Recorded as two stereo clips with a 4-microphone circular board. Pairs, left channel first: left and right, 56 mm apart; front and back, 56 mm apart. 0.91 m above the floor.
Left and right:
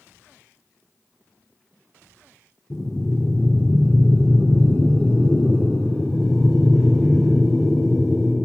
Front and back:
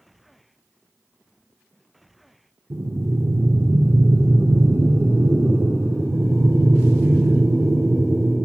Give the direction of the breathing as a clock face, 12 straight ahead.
7 o'clock.